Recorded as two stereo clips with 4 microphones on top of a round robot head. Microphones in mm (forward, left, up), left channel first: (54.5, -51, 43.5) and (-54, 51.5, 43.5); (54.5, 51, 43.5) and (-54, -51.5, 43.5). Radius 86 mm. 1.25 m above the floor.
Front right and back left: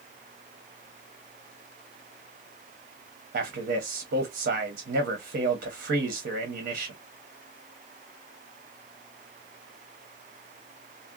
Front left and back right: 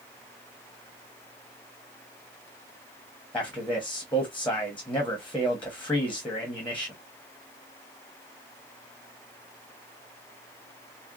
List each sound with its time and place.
3.3 s a man speaking: 125° left, 1.0 m